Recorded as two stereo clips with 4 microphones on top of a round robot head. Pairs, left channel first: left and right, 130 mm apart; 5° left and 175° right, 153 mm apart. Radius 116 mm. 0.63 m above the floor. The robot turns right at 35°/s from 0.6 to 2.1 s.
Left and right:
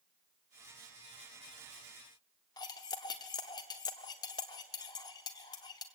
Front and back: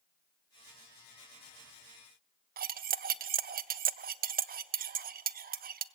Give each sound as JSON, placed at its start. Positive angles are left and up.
{"t": 2.6, "sound": "cutlery clinking", "azimuth_deg": 155, "distance_m": 0.5}